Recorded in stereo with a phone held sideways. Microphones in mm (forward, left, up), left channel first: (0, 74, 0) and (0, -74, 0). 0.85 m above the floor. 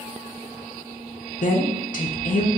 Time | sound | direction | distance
1.4 | a woman speaking | 60° left (ahead or behind) | 0.5 m